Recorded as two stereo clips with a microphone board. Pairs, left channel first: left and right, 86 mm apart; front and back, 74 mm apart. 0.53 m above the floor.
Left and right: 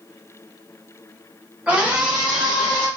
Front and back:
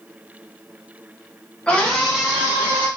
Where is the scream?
45° right, 1.2 m; by 2.9 s straight behind, 1.3 m.